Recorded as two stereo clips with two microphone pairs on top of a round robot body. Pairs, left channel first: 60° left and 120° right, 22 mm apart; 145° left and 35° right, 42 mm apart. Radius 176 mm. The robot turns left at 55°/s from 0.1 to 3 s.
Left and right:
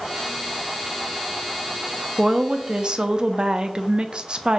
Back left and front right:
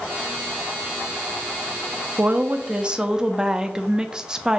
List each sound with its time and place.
2.2 s a woman speaking: 70° right, 0.5 m; by 4.6 s 115° right, 0.5 m